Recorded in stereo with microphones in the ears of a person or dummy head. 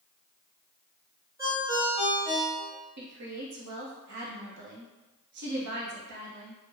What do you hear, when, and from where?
1.4 s a ringtone: 15° right (ahead or behind), 0.9 m
3.0 s a woman speaking: 60° right (ahead or behind), 1.0 m